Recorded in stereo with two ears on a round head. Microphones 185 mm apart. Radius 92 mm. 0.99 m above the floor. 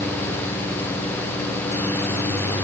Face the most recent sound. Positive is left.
No sound to turn to.